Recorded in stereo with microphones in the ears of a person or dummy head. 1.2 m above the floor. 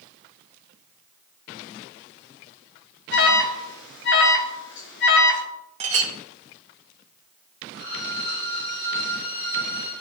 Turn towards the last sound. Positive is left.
turn(degrees=80)